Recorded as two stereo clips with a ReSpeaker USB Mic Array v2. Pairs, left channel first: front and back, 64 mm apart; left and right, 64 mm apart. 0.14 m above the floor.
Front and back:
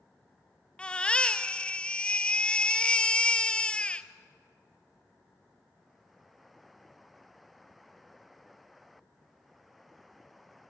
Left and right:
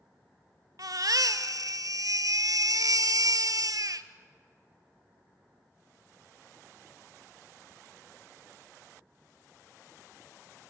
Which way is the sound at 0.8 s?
70° right.